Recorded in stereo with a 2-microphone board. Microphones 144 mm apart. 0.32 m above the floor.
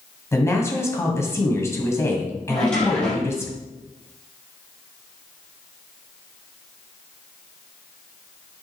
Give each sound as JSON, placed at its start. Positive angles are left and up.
{"t": 0.3, "sound": "a woman speaking", "side_deg": 20, "distance_m": 1.8}
{"t": 2.5, "sound": "a drawer", "side_deg": 5, "distance_m": 4.0}